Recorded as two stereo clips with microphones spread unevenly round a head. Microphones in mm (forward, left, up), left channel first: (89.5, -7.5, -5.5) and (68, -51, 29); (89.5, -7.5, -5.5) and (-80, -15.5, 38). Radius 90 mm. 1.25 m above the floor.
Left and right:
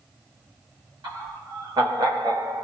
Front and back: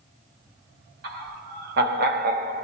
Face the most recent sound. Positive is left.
turn(degrees=-145)